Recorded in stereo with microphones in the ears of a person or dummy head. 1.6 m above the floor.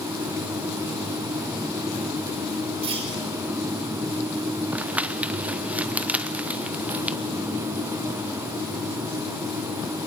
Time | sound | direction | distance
2.8 | a clunk | 30° right (ahead or behind) | 6 m
4.7 | crumpling | 10° right (ahead or behind) | 0.6 m